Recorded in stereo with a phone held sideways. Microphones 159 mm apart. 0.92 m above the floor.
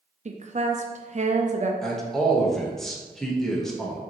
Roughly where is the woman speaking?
Right.